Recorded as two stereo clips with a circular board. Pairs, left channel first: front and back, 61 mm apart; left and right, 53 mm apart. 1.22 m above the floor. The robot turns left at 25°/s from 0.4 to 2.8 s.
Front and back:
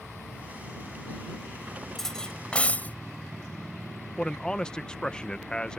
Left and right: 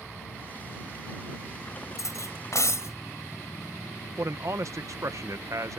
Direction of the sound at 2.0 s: 85° left.